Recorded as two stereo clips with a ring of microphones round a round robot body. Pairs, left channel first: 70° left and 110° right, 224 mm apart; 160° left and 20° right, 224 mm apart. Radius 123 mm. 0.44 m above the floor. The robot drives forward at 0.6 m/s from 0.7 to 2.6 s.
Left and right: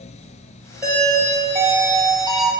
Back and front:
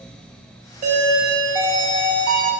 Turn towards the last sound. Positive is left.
turn(degrees=-120)